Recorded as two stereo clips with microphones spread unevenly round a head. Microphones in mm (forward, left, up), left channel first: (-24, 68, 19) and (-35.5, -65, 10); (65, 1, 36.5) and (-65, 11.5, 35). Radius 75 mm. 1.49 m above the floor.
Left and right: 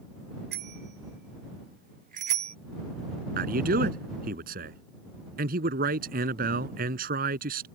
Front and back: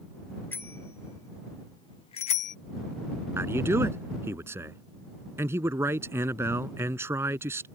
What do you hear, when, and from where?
0.5 s a bicycle bell: 80° right; by 2.6 s 35° right
3.4 s a man speaking: 110° right